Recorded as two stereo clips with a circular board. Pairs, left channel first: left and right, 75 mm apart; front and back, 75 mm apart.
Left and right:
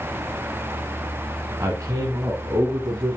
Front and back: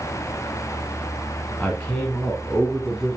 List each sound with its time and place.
1.6 s a man speaking: 60° right, 1.5 m; by 3.2 s 95° right, 2.5 m